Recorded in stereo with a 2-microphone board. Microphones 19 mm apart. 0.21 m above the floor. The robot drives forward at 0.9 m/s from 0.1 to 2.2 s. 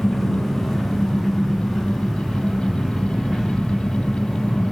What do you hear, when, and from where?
0.0 s an engine running: 15° left (ahead or behind), 4 m; by 4.7 s 10° left (ahead or behind), 5.5 m